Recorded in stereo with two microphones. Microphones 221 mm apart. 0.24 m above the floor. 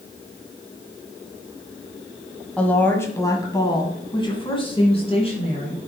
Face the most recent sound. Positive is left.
turn(degrees=30)  # may be behind; listen again after turning